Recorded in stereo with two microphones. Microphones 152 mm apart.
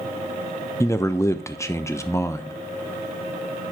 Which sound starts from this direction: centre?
A man speaking, at 0.8 s.